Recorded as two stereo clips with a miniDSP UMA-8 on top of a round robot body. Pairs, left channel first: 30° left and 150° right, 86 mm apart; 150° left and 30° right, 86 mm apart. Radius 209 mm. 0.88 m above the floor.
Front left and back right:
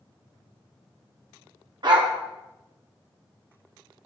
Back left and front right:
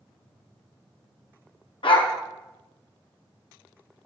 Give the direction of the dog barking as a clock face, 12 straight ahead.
6 o'clock.